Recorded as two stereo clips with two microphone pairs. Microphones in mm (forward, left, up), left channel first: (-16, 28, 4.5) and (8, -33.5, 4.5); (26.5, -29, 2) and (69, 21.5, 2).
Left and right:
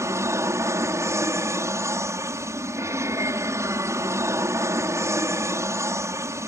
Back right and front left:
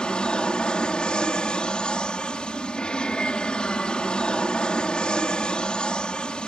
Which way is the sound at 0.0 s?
60° right.